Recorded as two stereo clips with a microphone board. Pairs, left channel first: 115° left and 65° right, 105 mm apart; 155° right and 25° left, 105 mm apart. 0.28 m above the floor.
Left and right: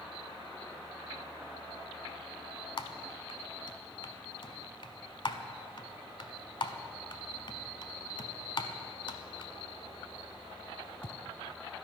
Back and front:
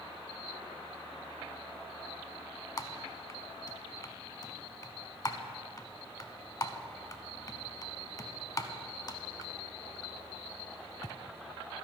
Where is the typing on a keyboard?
150° left, 0.6 m.